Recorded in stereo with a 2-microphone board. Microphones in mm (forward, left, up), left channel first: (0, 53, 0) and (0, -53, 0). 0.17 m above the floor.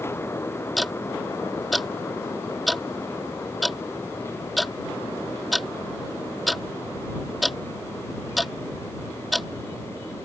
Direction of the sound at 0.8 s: Centre (ahead or behind).